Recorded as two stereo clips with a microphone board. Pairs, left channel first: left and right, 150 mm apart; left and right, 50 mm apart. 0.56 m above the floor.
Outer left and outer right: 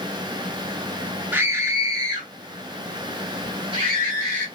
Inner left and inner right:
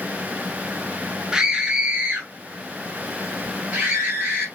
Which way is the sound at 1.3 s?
10° right (ahead or behind).